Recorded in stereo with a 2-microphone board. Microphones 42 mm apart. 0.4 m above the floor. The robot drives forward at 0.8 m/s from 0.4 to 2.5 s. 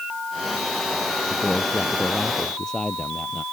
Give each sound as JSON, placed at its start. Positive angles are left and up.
{"t": 1.3, "sound": "a man speaking", "side_deg": 15}